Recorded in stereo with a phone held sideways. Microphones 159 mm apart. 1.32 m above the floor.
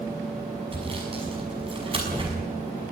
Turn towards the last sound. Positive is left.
turn(degrees=-35)  # may be behind; listen again after turning